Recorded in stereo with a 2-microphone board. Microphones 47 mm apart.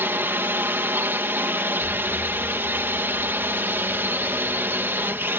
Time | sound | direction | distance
0.0 | a drone | 55° right (ahead or behind) | ?
1.8 | an explosion | 75° left (ahead or behind) | ?